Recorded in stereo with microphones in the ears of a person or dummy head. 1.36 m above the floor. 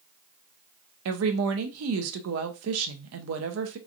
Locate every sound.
1.1 s a woman speaking: 80° right, 0.6 m